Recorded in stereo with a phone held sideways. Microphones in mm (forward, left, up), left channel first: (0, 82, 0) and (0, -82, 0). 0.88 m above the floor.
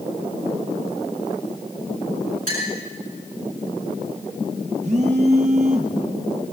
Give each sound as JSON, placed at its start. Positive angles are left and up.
{"t": 2.5, "sound": "a clink", "side_deg": -60, "distance_m": 6.0}
{"t": 4.8, "sound": "a phone buzzing", "side_deg": -45, "distance_m": 1.3}